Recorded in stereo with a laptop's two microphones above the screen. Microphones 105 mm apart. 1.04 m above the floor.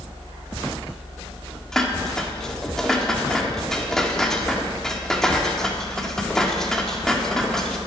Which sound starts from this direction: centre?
Dishes clattering, at 1.7 s.